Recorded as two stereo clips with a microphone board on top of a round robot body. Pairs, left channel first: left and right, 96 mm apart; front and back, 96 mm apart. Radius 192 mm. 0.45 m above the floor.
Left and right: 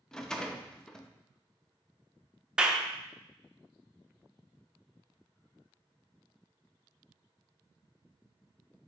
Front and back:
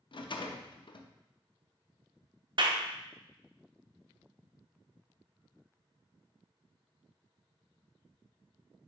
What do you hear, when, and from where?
0.1 s a rattle: 10° left, 0.6 m
2.6 s a clap: 170° right, 0.7 m